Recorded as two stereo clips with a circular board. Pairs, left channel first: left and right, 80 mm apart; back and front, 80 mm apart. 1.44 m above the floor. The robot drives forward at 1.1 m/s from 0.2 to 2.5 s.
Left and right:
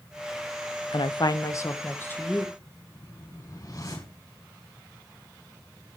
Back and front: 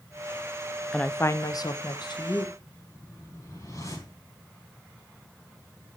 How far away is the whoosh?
About 6.5 m.